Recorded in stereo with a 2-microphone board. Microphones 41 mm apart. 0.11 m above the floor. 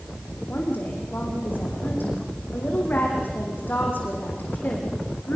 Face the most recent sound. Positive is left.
turn(degrees=55)  # may be behind; listen again after turning